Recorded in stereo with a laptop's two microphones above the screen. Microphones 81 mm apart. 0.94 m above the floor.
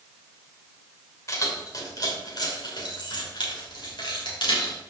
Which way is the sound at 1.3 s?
40° left (ahead or behind).